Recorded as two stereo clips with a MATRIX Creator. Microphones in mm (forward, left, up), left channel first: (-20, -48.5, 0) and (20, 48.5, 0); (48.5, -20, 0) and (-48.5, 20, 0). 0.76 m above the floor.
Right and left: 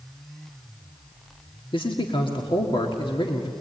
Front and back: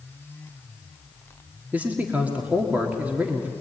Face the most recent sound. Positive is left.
turn(degrees=-130)